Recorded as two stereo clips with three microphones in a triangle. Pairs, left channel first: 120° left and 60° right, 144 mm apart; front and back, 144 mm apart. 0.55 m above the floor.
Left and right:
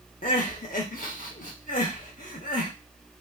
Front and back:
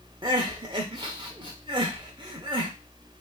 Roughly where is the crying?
Behind left.